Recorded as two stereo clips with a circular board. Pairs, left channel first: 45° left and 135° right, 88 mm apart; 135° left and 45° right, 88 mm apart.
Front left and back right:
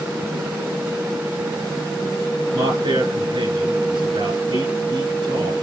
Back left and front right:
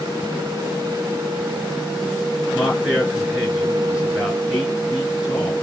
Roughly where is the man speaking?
Behind right.